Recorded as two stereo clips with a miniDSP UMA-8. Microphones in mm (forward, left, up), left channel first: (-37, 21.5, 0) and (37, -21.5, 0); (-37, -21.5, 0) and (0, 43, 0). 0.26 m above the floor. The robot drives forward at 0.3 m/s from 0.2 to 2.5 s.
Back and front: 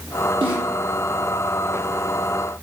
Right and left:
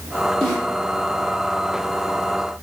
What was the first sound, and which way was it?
A snare drum, 40° right.